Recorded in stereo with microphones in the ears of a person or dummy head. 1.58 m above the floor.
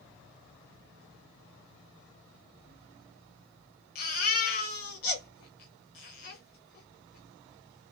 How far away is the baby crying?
About 0.9 m.